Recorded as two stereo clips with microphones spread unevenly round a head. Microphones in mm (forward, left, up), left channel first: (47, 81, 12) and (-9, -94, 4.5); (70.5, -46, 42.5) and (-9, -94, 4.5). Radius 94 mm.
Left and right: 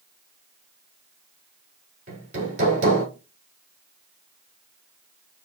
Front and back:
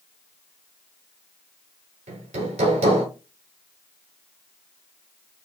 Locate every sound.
2.1 s hammering: 165° right, 1.7 m